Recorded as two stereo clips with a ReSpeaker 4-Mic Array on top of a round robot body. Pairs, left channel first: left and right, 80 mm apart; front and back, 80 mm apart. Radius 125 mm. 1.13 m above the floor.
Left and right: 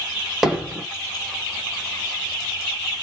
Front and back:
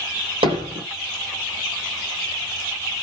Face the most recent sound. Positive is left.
turn(degrees=180)